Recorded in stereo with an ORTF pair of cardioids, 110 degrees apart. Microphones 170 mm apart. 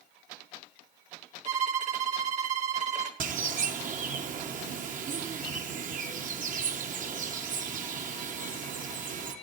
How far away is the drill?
No drill in this recording.